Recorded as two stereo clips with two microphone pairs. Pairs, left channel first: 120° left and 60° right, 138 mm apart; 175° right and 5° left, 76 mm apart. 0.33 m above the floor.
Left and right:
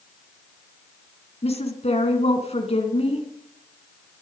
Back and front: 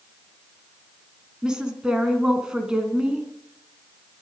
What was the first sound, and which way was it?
A woman speaking, 85° left.